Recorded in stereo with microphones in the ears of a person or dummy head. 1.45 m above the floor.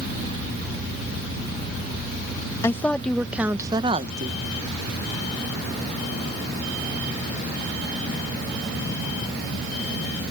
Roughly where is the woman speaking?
Centre.